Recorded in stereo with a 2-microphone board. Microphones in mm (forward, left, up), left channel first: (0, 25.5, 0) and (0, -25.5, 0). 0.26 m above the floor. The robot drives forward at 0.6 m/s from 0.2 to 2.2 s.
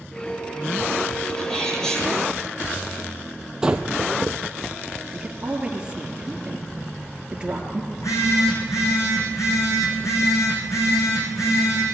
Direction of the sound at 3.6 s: 15° right (ahead or behind).